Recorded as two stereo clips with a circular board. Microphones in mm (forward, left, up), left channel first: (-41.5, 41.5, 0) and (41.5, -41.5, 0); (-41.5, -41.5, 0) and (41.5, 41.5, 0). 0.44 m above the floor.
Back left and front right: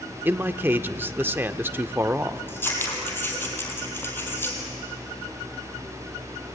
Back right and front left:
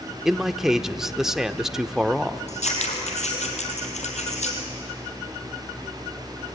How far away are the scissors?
About 4 m.